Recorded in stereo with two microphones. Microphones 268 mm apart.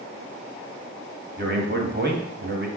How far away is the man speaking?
About 1.2 m.